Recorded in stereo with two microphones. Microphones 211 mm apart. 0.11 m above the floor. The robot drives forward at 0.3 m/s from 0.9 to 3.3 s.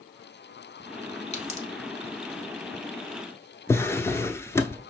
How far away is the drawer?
About 0.6 m.